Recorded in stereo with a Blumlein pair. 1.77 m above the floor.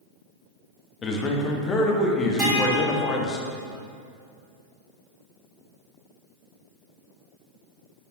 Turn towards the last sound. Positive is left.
turn(degrees=-30)